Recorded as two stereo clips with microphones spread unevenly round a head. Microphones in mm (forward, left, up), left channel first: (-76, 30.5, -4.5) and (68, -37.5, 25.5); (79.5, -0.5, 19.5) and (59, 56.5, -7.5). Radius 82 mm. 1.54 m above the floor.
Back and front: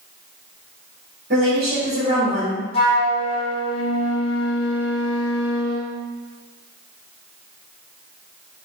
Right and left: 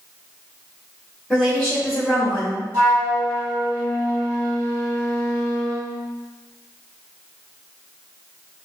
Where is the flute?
175° left, 1.2 m.